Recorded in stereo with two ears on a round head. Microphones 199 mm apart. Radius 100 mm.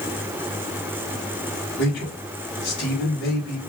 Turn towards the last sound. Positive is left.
turn(degrees=50)  # may be behind; listen again after turning